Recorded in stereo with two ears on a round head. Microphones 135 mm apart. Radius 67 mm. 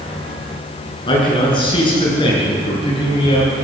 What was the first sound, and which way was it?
A man speaking, 30° left (ahead or behind).